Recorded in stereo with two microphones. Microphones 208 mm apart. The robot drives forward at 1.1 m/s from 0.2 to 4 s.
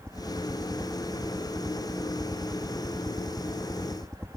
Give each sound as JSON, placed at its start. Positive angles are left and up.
{"t": 0.0, "sound": "a helicopter", "side_deg": 5}